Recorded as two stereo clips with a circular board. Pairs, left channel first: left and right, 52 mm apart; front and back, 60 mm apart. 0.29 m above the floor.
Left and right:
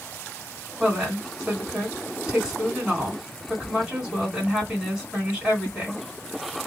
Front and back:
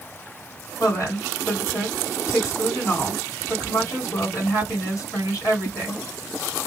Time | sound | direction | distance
0.8 | a woman speaking | 10° right | 2 m